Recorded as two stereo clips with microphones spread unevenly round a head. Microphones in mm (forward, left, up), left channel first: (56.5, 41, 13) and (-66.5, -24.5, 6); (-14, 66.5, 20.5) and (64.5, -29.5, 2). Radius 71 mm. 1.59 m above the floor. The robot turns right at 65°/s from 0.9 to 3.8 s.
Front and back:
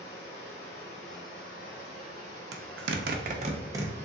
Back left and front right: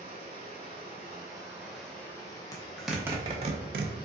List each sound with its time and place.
0.0 s running water: 15° right, 2 m; by 4.1 s 175° left, 2 m
2.5 s a zipper: 165° right, 0.7 m; by 4.0 s 80° right, 0.7 m